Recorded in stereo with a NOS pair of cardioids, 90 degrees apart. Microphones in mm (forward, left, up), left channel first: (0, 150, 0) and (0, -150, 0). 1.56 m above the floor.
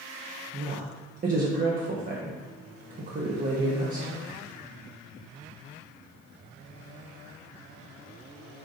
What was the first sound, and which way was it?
A woman speaking, 30° right.